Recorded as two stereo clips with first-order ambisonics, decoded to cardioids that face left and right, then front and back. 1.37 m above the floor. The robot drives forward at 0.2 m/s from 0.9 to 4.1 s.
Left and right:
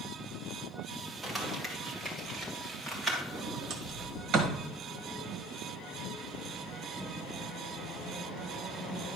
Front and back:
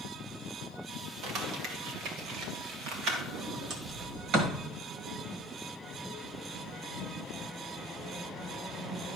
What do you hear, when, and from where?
1.2 s crumpling: straight behind, 1.9 m
3.3 s a sliding door: 135° right, 1.4 m; by 4.6 s 140° right, 1.5 m